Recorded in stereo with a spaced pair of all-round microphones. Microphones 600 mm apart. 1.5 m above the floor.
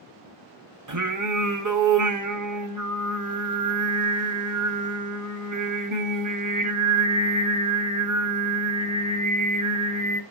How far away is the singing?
About 0.7 m.